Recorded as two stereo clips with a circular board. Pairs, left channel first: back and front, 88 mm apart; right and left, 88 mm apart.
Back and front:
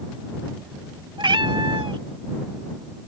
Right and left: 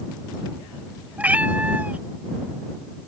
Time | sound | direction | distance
1.2 | a cat meowing | 20° left | ?